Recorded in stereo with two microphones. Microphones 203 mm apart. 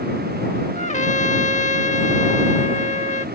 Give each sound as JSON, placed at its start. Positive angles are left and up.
{"t": 0.8, "sound": "a trumpet", "side_deg": 35}